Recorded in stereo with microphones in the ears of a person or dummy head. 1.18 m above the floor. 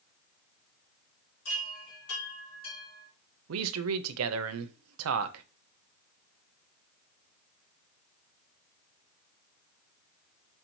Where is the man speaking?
75° right (ahead or behind), 0.6 m.